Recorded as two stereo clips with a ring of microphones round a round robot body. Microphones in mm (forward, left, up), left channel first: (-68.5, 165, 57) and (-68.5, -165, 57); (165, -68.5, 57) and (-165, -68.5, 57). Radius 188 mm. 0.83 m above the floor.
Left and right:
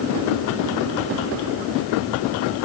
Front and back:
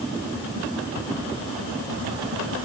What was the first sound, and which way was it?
Only background noise.